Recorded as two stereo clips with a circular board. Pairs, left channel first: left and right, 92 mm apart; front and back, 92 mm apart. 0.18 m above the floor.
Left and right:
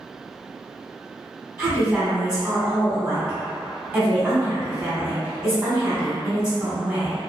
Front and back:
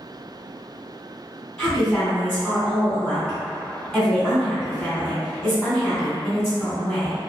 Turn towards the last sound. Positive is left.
turn(degrees=-45)